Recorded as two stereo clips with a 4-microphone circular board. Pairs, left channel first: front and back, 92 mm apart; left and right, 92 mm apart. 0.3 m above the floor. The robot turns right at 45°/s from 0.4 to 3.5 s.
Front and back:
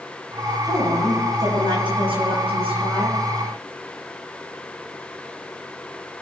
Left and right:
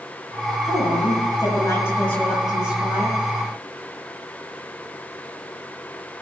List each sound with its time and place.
0.7 s a woman speaking: 105° left, 6.5 m; by 3.2 s 140° right, 6.5 m